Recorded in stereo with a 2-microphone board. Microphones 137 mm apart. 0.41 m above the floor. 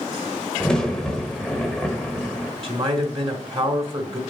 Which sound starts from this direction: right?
A man speaking, at 2.6 s.